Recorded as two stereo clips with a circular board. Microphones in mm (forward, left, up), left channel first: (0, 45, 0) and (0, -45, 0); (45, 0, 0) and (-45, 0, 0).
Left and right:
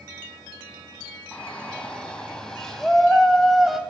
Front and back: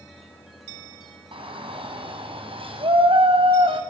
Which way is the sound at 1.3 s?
165° left.